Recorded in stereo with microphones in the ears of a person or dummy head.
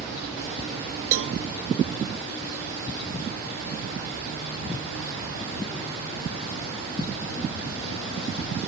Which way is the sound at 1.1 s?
80° right.